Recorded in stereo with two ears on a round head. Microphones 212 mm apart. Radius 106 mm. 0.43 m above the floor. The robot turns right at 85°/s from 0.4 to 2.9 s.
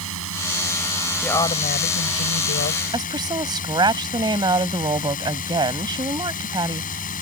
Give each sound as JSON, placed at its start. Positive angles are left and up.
{"t": 0.0, "sound": "a drone", "azimuth_deg": -70}
{"t": 1.2, "sound": "a woman speaking", "azimuth_deg": 5}
{"t": 2.9, "sound": "a woman speaking", "side_deg": -20}